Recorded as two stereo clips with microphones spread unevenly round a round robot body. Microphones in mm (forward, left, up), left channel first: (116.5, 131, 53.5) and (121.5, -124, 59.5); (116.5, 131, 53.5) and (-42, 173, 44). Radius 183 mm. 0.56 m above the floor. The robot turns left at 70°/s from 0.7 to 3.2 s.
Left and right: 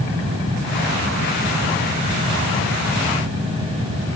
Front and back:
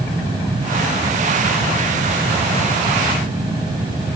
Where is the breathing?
No breathing in this recording.